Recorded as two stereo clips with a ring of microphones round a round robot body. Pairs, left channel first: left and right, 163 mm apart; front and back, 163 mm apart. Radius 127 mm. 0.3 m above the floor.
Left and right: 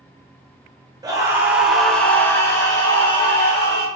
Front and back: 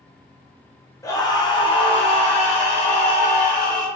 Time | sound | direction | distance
1.0 | a scream | 50° right | 1.5 m